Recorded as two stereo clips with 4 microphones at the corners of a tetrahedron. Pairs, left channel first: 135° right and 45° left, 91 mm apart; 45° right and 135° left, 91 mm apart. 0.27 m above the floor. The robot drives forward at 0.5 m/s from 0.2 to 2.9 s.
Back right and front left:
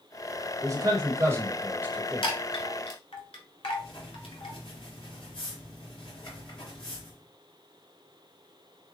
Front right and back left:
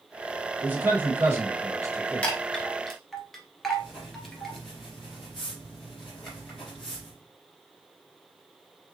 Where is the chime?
120° right, 1.2 m; by 4.6 s 130° right, 1.4 m.